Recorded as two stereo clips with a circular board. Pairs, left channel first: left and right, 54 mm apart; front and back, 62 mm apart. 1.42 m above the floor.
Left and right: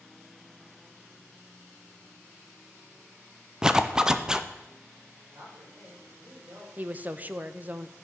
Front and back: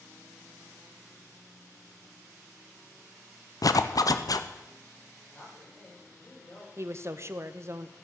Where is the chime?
I don't hear a chime.